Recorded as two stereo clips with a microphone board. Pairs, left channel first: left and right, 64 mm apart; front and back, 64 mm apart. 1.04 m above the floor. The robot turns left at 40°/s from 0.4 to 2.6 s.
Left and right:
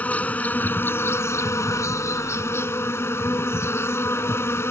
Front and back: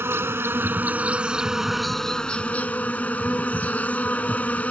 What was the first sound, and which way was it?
An insect, 150° left.